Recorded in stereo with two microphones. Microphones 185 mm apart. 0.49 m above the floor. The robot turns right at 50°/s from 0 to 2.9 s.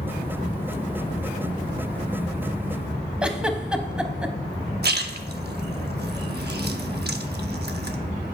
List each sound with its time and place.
3.2 s a giggle: 5° right (ahead or behind), 0.7 m
4.8 s a splash: 60° right (ahead or behind), 0.6 m